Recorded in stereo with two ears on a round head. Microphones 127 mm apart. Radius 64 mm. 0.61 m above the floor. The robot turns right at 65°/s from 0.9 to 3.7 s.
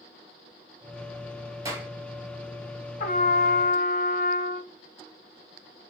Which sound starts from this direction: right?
A clap, at 1.6 s.